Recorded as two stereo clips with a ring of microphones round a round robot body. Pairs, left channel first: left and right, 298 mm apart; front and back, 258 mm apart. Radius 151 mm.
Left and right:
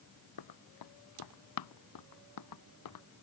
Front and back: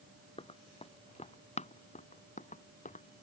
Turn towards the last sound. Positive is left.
turn(degrees=60)